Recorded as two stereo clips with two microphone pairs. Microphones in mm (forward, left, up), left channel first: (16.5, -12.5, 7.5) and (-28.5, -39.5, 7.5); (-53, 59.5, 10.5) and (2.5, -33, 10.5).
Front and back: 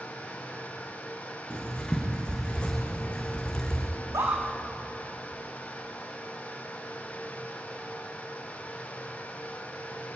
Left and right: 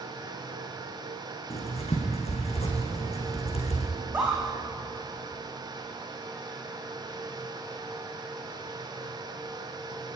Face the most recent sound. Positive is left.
turn(degrees=-130)